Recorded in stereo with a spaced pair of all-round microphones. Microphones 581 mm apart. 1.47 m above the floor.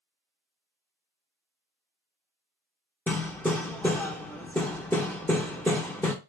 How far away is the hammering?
About 0.9 m.